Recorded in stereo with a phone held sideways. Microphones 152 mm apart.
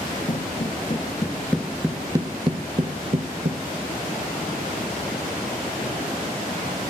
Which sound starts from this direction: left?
Footsteps, at 0.3 s.